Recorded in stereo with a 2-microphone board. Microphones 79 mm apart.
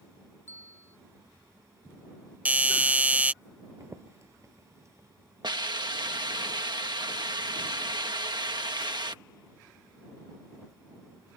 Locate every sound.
0.5 s a bell: 25° left (ahead or behind)
2.5 s a doorbell: 20° right (ahead or behind)
3.8 s footsteps: 40° right (ahead or behind)
5.4 s a hiss: 65° right (ahead or behind)